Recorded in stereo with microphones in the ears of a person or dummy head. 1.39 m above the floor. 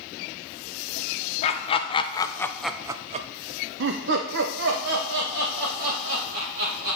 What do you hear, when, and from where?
1.4 s laughter: 35° left (ahead or behind), 1.0 m; by 7.0 s 55° right (ahead or behind), 2.5 m